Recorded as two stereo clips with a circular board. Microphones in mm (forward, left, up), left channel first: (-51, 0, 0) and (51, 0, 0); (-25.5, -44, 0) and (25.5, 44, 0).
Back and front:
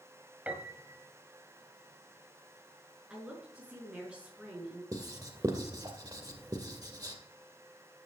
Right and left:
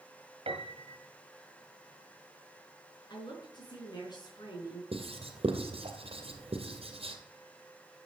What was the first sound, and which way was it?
A piano, 75° left.